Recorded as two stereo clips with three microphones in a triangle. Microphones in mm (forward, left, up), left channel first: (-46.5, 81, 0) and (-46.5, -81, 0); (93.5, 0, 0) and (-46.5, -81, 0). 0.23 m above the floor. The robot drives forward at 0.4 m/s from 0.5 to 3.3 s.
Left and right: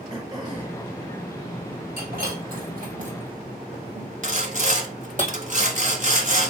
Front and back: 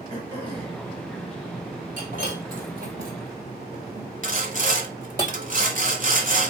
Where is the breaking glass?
115° right, 2 m; by 5.2 s 125° right, 2.5 m.